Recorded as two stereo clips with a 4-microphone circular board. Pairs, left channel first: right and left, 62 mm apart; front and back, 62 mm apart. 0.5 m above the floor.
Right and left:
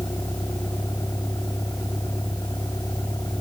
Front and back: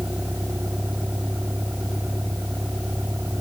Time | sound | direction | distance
0.0 | a vehicle | 120° right | ?